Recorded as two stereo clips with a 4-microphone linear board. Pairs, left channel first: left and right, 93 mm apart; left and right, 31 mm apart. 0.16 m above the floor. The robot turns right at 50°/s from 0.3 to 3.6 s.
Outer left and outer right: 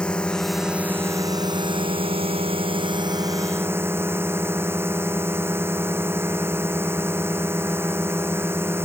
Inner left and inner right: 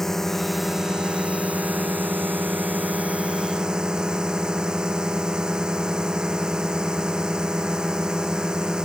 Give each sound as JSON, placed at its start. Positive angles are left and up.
{"t": 0.0, "sound": "a drone", "azimuth_deg": 170}